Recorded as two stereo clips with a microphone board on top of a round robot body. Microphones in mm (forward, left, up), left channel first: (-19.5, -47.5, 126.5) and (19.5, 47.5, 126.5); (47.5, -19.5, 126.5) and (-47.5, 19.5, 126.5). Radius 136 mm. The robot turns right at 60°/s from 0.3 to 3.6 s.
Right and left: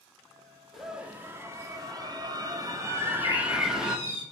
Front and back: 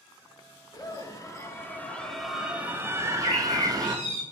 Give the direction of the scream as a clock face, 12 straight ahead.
1 o'clock.